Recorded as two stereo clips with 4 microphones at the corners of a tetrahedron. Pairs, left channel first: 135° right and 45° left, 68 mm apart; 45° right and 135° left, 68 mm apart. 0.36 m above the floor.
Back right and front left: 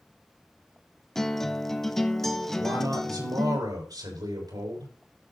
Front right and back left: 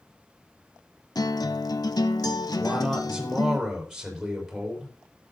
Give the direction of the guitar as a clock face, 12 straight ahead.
2 o'clock.